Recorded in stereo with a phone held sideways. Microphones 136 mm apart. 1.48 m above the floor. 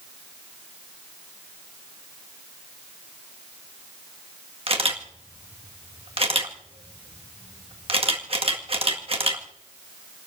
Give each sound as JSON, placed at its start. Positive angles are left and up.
{"t": 4.7, "sound": "a camera shutter", "side_deg": -45, "distance_m": 1.8}